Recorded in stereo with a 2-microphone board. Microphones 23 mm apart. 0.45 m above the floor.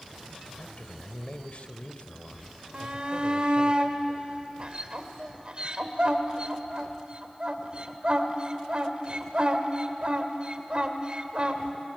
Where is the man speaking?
60° left (ahead or behind), 1.6 m.